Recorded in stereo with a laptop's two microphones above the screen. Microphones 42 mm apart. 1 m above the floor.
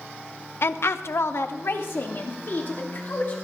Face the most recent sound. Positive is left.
turn(degrees=45)  # may be behind; listen again after turning